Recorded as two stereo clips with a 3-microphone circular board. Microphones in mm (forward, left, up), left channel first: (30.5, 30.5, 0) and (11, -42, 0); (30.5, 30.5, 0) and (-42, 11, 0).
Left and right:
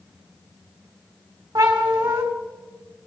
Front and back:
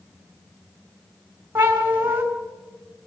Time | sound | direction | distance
1.6 | a cat meowing | 105° right | 3 m